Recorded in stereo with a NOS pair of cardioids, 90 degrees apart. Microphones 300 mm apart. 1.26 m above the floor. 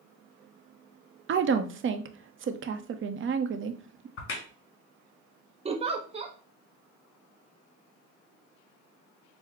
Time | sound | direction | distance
1.3 | a woman speaking | 40° right | 0.7 m
4.2 | a crack | 45° left | 1.6 m
5.7 | a giggle | 20° right | 0.7 m